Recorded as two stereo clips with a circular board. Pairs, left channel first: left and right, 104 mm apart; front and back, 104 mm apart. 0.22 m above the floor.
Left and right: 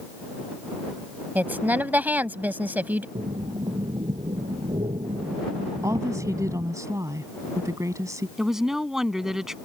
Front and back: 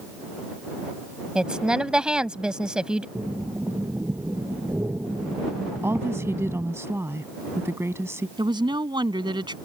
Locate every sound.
1.4 s a woman speaking: 115° right
3.1 s breathing: 115° right
5.8 s a woman speaking: 130° right
8.4 s a woman speaking: 175° right